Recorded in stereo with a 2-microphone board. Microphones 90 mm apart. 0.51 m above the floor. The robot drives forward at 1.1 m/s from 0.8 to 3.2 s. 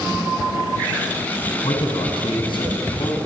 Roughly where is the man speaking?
Left.